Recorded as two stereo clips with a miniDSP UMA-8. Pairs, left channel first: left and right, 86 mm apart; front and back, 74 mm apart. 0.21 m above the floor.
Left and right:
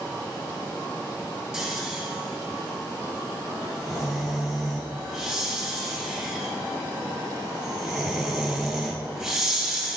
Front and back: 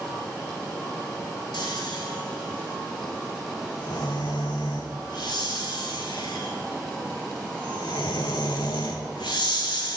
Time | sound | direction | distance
1.5 | snoring | 5° right | 0.9 m